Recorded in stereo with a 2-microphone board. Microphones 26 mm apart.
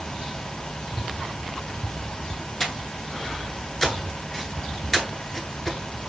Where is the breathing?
15° left (ahead or behind), 0.7 m.